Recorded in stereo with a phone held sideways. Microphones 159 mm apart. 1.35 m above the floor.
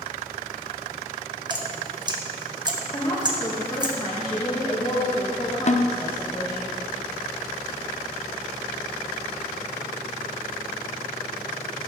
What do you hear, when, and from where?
1.5 s dripping: 30° right (ahead or behind), 1.3 m
2.9 s a woman speaking: 20° left (ahead or behind), 2 m
5.7 s a snare drum: 45° left (ahead or behind), 0.5 m